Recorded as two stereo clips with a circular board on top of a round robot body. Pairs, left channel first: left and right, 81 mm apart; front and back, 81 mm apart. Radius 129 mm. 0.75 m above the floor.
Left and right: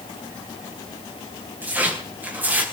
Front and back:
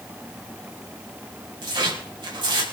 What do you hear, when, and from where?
1.6 s tearing paper: 155° right, 5 m